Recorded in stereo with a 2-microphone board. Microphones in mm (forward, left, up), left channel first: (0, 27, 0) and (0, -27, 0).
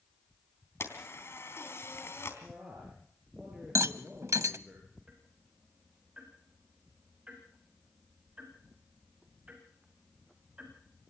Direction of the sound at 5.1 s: 25° right (ahead or behind).